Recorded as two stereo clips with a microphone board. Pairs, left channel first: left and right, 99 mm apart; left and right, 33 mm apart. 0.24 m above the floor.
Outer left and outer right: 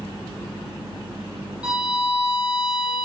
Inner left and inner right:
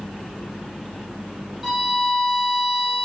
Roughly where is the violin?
Centre.